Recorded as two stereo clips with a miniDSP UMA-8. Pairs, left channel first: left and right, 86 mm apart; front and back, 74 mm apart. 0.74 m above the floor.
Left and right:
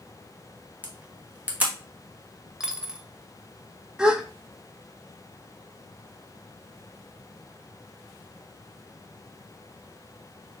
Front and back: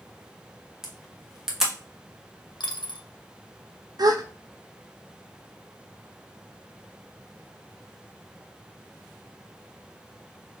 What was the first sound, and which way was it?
A camera shutter, 105° right.